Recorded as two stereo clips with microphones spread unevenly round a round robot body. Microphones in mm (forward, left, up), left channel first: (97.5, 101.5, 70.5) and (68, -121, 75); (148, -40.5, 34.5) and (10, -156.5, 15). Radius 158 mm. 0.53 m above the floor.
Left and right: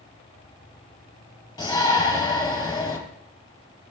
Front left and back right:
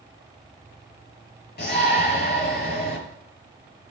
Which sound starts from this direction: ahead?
A shout, at 1.6 s.